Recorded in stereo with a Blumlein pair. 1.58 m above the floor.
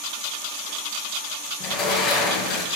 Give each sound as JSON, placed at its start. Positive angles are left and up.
{"t": 1.6, "sound": "a sliding door", "azimuth_deg": 25, "distance_m": 0.9}